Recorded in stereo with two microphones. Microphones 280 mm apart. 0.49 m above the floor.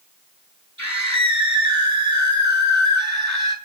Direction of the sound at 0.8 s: 75° right (ahead or behind).